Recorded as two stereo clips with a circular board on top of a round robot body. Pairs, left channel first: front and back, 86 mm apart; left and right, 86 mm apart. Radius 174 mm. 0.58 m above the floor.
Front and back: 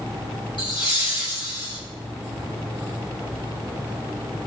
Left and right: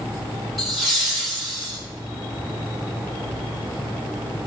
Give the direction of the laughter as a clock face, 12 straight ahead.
12 o'clock.